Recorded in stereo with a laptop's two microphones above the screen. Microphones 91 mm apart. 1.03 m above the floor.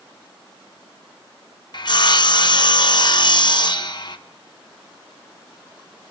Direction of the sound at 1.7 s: 55° left (ahead or behind).